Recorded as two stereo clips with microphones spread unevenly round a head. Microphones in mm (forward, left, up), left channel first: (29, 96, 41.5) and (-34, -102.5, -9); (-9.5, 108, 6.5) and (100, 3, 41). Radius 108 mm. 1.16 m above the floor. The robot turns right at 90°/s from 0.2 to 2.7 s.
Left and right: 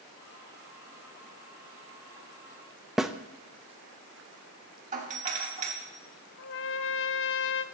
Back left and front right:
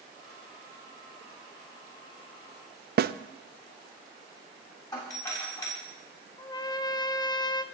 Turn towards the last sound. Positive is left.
turn(degrees=70)